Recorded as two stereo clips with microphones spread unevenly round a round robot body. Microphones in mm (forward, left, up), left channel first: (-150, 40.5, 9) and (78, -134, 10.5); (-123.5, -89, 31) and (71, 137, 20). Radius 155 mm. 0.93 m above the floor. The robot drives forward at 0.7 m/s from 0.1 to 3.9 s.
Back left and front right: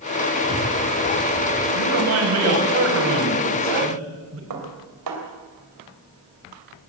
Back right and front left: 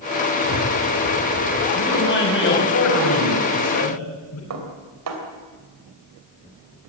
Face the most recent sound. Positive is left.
turn(degrees=5)